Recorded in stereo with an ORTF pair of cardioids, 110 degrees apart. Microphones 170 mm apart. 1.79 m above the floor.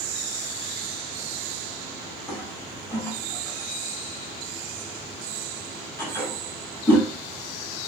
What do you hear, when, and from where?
2.3 s a toilet flushing: 10° left, 1.7 m